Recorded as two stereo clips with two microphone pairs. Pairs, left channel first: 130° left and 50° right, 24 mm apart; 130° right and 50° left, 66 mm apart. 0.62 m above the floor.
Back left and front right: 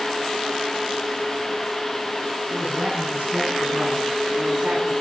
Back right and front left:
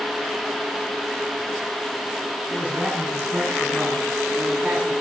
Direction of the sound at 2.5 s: 10° right.